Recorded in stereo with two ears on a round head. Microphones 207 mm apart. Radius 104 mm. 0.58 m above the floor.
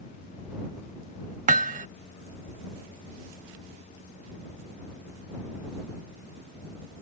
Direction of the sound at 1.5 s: 35° right (ahead or behind).